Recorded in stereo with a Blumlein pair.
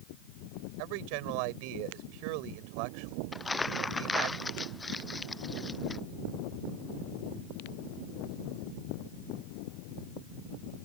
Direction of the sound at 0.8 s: 45° right.